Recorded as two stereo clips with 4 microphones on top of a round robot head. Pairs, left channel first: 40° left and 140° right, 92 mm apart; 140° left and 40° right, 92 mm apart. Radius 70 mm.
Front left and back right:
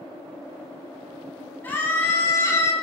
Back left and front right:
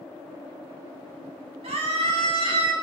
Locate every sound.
1.6 s a scream: 30° right, 4 m; by 2.7 s 15° right, 4 m